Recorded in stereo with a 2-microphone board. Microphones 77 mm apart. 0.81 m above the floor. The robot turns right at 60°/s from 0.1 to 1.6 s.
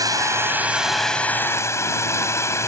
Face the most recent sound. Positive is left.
turn(degrees=40)